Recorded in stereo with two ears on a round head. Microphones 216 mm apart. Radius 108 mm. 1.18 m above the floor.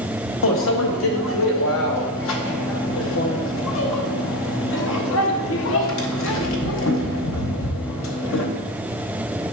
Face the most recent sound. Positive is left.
turn(degrees=55)  # may be behind; listen again after turning